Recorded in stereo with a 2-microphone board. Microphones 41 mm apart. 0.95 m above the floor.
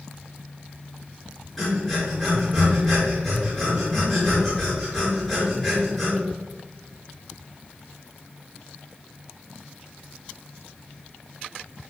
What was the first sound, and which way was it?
Breathing, 5° left (ahead or behind).